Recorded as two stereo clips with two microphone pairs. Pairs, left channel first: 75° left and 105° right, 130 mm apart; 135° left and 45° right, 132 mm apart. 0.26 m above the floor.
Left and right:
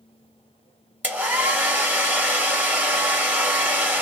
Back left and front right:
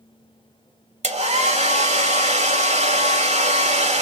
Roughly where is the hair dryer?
Ahead right.